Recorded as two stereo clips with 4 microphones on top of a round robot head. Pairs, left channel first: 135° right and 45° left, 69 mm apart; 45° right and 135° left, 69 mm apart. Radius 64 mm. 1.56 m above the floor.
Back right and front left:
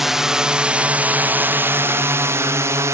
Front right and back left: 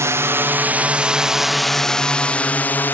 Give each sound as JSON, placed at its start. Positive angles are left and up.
{"t": 0.0, "sound": "a drone", "azimuth_deg": 130}